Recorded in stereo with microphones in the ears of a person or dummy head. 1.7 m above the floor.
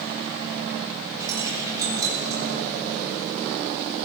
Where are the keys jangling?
20° right (ahead or behind), 4 m.